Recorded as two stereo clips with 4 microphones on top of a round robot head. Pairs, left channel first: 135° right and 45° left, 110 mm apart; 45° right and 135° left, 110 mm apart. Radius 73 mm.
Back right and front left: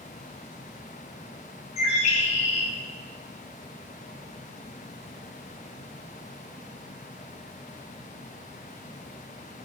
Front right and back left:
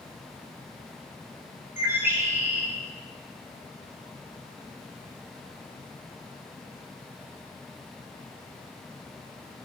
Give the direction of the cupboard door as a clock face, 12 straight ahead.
I don't hear a cupboard door.